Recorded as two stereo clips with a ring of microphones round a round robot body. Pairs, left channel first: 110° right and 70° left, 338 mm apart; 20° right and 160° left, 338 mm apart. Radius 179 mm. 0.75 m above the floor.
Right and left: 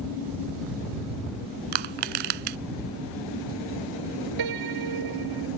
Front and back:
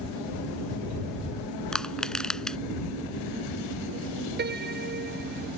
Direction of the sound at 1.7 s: 65° left.